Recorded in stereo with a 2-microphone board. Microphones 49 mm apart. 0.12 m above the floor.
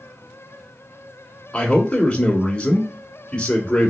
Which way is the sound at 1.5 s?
20° left (ahead or behind).